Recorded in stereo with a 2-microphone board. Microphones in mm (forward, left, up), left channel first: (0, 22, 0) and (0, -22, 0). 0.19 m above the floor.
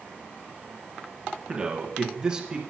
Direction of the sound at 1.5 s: 20° right (ahead or behind).